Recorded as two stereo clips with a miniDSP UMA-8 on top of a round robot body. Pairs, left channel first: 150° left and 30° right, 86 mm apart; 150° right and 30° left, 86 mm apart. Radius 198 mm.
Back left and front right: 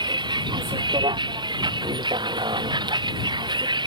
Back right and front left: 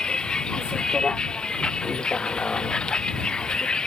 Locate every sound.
0.0 s a vehicle: 70° right